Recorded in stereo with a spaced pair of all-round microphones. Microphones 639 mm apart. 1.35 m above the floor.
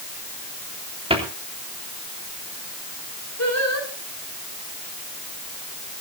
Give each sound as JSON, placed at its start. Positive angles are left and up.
{"t": 1.1, "sound": "a cupboard door", "side_deg": -10, "distance_m": 3.0}
{"t": 3.4, "sound": "singing", "side_deg": 25, "distance_m": 5.0}